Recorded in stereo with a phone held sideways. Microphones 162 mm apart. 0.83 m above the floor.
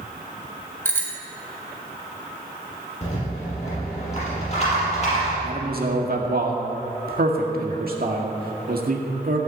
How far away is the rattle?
About 5.5 m.